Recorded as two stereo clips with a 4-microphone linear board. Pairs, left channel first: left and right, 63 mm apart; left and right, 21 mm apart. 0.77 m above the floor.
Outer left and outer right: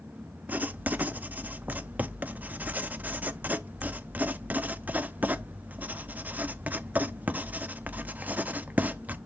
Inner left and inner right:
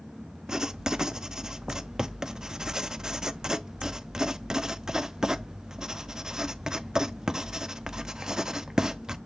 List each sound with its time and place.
0.5 s writing: 25° right (ahead or behind), 0.6 m